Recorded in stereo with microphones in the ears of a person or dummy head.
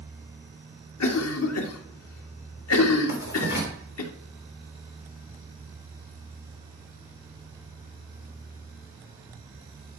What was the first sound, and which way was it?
A cough, 80° left.